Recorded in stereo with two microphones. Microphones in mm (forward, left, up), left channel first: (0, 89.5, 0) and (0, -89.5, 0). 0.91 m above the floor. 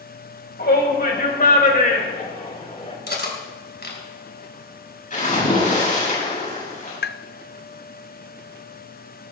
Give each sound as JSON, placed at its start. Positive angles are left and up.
{"t": 0.6, "sound": "a shout", "side_deg": 65, "distance_m": 4.0}
{"t": 3.1, "sound": "cutlery clinking", "side_deg": 70, "distance_m": 3.0}
{"t": 5.1, "sound": "a splash", "side_deg": 45, "distance_m": 7.5}
{"t": 7.0, "sound": "tapping", "side_deg": 70, "distance_m": 0.5}